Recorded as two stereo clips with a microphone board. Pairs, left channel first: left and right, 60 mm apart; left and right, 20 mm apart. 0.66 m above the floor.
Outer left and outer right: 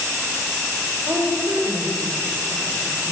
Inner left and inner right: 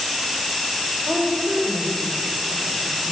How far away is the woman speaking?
About 2 m.